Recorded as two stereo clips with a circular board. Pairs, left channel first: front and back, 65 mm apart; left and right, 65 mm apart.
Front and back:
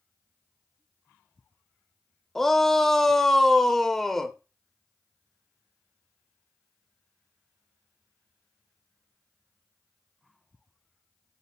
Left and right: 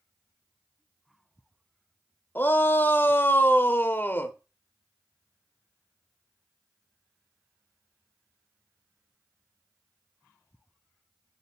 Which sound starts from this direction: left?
A shout, at 2.4 s.